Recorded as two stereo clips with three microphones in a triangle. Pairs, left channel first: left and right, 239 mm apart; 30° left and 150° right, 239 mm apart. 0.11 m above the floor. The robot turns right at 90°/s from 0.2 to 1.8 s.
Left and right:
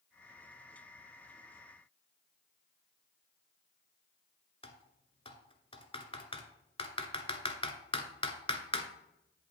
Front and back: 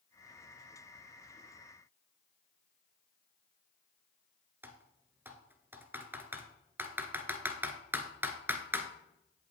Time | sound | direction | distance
4.6 | typing on a keyboard | 135° left | 1.0 m